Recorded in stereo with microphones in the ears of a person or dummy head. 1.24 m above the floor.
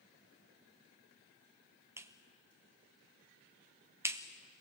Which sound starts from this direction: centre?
A clap, at 2.0 s.